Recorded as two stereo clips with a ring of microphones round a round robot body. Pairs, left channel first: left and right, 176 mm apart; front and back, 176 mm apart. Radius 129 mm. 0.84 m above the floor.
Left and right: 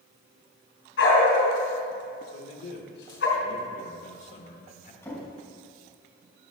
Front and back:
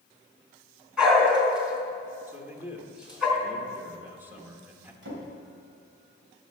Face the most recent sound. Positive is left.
turn(degrees=170)